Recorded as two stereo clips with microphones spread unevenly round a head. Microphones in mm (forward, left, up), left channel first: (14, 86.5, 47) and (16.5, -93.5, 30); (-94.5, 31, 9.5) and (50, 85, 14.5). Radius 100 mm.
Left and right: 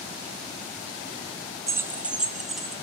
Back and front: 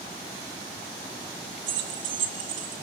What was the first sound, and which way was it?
Keys jangling, 15° right.